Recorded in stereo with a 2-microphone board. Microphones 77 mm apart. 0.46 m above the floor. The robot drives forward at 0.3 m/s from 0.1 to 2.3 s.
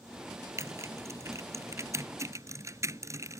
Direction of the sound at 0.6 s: 40° right (ahead or behind).